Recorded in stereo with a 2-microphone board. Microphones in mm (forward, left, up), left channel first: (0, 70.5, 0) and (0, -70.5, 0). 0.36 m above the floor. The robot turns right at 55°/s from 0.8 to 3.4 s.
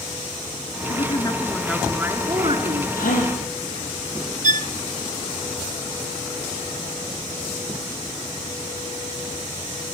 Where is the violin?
60° right (ahead or behind), 0.5 m.